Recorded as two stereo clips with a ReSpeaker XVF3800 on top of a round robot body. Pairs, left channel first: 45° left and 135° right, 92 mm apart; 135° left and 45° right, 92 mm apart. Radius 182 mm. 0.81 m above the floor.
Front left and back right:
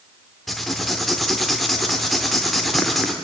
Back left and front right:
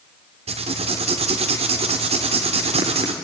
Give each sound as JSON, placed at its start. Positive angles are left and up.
{"t": 0.5, "sound": "writing", "azimuth_deg": -45, "distance_m": 0.7}